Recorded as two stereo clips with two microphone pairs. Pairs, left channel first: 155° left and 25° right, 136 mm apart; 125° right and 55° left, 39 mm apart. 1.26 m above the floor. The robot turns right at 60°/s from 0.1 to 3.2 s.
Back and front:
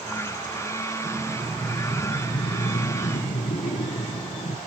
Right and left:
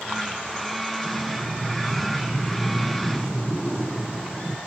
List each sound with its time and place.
1.0 s breathing: 45° left, 0.7 m; by 4.6 s 175° left, 0.7 m